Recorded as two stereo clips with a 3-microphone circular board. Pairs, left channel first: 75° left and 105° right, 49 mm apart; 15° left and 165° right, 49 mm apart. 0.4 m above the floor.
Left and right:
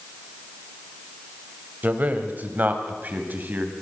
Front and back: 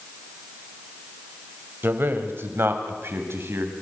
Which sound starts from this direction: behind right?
A man speaking, at 1.8 s.